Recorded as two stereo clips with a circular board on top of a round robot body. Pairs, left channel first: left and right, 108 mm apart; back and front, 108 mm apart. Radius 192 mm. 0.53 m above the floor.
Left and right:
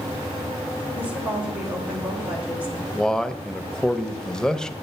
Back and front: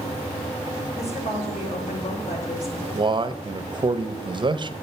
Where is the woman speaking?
170° right, 3 m.